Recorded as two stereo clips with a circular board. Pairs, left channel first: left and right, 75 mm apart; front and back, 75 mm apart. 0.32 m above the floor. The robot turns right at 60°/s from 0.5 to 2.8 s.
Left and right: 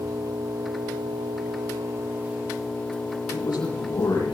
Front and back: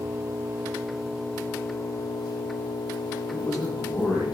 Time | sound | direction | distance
0.0 | an engine running | 120° right | 2 m
3.3 | a man speaking | 85° left | 8 m